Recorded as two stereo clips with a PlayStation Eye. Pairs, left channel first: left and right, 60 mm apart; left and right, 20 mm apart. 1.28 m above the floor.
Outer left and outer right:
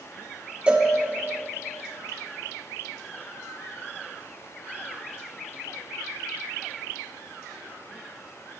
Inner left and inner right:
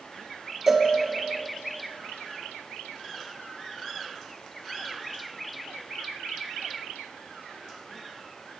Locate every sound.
0.7 s a cowbell: 20° right (ahead or behind), 1.2 m